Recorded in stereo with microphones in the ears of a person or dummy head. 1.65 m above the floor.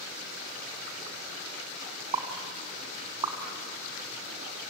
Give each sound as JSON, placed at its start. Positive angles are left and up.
{"t": 2.1, "sound": "a pop", "side_deg": -15, "distance_m": 2.0}